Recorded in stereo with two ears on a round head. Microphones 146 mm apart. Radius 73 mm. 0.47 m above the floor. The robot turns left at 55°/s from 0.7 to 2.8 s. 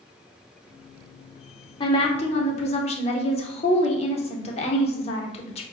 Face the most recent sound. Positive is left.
turn(degrees=75)